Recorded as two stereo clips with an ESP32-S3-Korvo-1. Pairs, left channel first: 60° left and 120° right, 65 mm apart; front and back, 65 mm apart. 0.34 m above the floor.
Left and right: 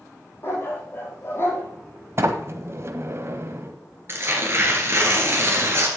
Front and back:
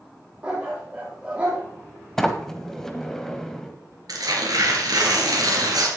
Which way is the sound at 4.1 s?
170° right.